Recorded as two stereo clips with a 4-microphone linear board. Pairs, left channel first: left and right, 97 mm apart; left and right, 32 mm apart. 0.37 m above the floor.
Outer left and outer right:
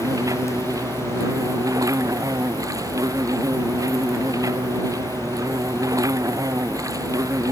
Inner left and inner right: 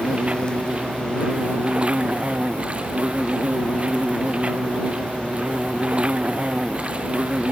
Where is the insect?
35° right (ahead or behind).